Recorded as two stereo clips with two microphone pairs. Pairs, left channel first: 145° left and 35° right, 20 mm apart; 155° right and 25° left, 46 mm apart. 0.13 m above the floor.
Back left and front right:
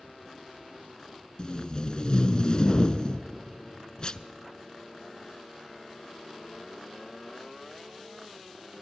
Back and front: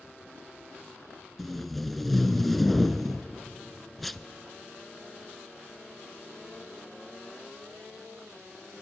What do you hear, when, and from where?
1.4 s tape being pulled: 125° left, 0.6 m